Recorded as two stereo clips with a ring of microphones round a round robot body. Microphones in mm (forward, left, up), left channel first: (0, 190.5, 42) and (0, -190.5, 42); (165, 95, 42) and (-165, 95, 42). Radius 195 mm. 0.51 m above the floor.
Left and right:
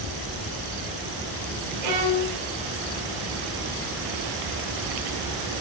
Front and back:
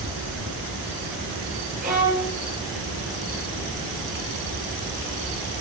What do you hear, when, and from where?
1.8 s a violin: 110° right, 4.5 m